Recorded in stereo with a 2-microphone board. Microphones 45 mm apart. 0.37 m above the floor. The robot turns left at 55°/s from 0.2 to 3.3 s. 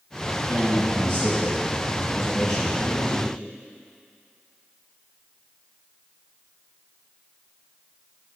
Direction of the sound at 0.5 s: 85° right.